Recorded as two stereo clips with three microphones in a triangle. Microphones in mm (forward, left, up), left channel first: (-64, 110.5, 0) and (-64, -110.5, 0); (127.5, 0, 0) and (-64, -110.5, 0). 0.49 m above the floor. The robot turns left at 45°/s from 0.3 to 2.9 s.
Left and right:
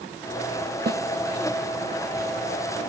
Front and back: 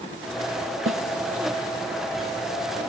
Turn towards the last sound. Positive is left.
turn(degrees=140)